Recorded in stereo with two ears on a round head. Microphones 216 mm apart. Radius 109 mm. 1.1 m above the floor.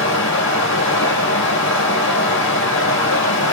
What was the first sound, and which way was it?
Running water, 55° left (ahead or behind).